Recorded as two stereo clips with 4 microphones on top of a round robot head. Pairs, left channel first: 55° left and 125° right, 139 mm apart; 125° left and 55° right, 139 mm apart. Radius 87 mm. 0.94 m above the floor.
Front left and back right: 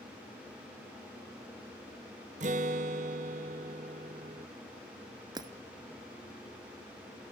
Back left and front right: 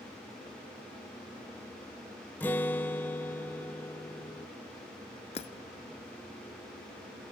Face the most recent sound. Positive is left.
turn(degrees=175)